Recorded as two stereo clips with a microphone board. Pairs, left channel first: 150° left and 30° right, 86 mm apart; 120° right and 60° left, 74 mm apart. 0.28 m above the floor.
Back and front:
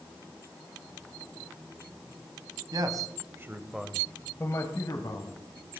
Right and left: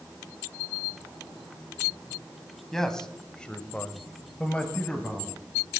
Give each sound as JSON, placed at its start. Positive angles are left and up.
{"t": 2.7, "sound": "a man speaking", "azimuth_deg": -40, "distance_m": 1.7}